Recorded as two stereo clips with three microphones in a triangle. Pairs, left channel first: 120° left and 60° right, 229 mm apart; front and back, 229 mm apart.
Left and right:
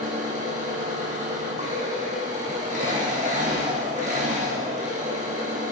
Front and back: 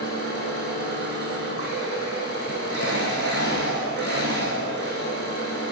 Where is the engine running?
5° right, 2.5 m.